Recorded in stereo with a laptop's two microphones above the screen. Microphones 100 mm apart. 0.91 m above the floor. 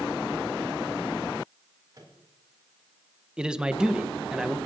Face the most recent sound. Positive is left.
turn(degrees=-5)  # may be behind; listen again after turning